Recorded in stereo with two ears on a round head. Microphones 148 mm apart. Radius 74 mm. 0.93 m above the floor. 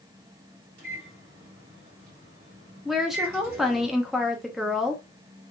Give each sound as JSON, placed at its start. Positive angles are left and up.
{"t": 0.8, "sound": "a microwave", "side_deg": -60, "distance_m": 2.0}
{"t": 2.9, "sound": "a woman speaking", "side_deg": 0, "distance_m": 0.6}